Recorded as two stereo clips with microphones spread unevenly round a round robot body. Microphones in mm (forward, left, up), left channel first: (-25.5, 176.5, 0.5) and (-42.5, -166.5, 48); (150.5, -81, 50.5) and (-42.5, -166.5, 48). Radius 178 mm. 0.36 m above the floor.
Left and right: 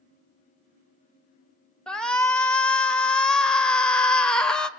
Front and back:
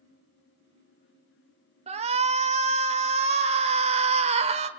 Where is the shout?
165° left, 1.2 m.